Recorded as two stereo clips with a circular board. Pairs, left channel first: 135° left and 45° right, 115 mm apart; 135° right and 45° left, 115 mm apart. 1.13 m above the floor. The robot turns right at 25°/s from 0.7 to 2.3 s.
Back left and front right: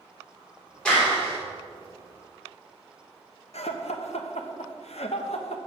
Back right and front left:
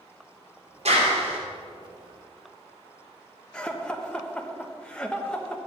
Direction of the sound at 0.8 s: 55° left.